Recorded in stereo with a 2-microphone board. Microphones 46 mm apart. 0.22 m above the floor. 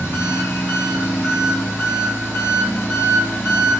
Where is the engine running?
80° left, 1.3 m.